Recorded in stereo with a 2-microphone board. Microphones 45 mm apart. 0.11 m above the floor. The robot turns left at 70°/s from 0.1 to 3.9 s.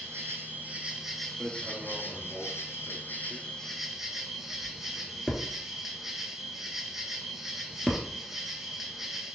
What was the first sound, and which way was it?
An insect, 100° right.